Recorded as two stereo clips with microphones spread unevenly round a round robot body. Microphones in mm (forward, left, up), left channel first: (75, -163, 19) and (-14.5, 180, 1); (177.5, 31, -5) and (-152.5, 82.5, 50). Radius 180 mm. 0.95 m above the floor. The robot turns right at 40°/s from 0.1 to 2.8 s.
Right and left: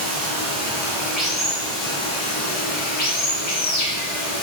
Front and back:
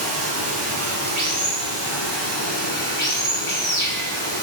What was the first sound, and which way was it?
Running water, 155° left.